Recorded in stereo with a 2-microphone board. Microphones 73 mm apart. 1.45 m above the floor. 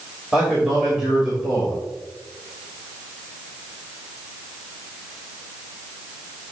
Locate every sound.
0.3 s a man speaking: 10° right (ahead or behind), 3 m